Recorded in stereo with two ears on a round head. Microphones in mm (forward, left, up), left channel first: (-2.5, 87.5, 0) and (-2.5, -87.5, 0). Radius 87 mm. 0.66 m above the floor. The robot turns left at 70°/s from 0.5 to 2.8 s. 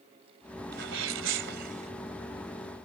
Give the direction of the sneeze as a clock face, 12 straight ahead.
2 o'clock.